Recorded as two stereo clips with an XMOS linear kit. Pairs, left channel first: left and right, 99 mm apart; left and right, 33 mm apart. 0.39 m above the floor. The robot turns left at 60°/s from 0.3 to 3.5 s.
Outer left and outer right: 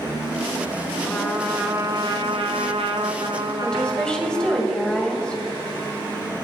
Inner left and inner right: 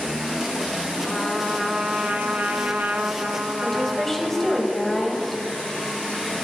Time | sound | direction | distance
1.1 | a trumpet | 10° left | 1.2 m
3.6 | a woman speaking | 10° left (ahead or behind) | 2.0 m